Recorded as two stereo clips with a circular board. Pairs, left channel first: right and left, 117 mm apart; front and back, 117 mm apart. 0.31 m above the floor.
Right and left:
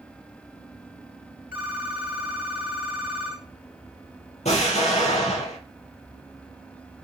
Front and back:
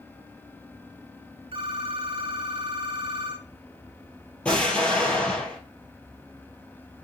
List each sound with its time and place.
1.5 s a phone ringing: 165° left, 1.6 m
4.5 s an explosion: 80° right, 2.5 m